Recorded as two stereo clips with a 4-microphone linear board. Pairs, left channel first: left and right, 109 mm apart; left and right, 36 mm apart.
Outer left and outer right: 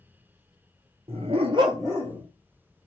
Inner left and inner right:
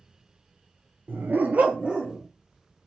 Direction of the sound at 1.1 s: 65° right (ahead or behind).